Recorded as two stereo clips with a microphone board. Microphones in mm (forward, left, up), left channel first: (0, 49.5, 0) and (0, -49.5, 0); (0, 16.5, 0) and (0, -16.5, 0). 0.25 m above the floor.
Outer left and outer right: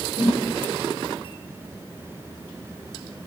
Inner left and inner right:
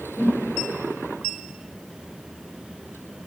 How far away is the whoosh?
About 4.5 m.